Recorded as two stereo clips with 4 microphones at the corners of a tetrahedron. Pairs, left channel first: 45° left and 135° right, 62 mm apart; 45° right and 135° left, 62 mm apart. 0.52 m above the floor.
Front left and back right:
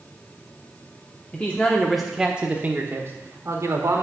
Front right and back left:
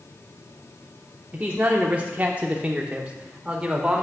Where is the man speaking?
90° left, 1.0 m; by 4.0 s 150° right, 1.6 m.